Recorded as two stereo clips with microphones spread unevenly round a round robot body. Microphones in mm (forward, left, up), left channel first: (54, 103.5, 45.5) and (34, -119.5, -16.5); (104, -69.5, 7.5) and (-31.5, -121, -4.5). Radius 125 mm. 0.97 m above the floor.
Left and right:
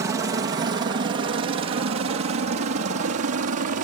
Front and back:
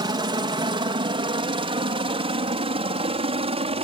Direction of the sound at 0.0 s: 135° right.